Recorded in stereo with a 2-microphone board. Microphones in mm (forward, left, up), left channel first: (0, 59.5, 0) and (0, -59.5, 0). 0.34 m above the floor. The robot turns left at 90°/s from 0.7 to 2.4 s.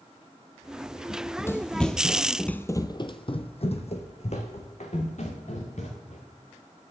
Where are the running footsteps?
45° left (ahead or behind), 0.9 m; by 6.2 s 70° left (ahead or behind), 3 m.